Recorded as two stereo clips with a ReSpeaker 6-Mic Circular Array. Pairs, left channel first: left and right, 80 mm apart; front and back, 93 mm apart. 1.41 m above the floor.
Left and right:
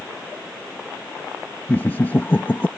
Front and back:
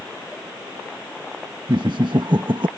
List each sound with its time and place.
1.7 s laughter: 155° left